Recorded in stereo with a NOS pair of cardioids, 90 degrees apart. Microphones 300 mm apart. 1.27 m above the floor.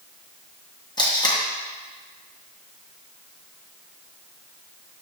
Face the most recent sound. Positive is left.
turn(degrees=15)